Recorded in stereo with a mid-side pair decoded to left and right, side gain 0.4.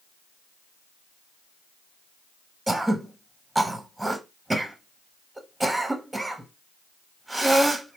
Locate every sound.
2.7 s throat clearing: 15° right, 0.7 m